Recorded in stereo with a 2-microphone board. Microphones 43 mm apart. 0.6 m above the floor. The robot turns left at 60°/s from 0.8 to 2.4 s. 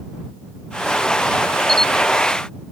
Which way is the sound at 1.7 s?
10° left (ahead or behind).